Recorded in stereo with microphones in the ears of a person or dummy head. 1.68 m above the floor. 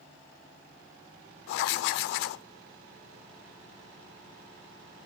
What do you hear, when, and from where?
1.5 s writing: 65° left (ahead or behind), 0.7 m